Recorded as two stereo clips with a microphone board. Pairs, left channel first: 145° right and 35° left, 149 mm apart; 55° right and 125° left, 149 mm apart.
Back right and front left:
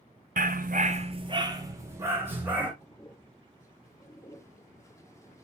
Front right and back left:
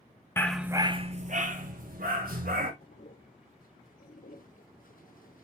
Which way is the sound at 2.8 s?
75° right.